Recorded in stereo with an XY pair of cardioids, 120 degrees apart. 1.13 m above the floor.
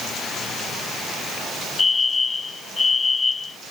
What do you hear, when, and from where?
1.8 s a fire alarm: 25° left